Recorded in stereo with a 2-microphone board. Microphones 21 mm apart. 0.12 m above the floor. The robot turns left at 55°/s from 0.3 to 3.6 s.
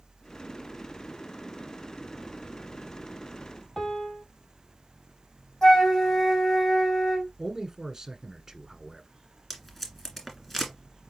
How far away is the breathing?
No breathing in this recording.